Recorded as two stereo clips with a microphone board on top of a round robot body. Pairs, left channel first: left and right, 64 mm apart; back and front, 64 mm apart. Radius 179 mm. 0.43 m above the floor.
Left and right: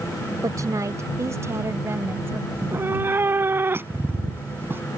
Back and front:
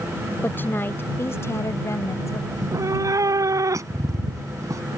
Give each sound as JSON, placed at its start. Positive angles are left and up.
{"t": 0.4, "sound": "a woman speaking", "azimuth_deg": -120}
{"t": 2.5, "sound": "a cat meowing", "azimuth_deg": -35}